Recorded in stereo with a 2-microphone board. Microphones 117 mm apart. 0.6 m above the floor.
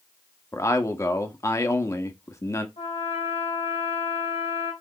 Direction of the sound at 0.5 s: 25° left (ahead or behind).